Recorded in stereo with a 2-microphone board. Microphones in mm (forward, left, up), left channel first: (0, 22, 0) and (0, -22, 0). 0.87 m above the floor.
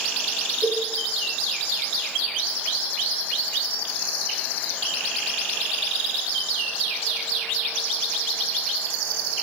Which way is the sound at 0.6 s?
45° right (ahead or behind).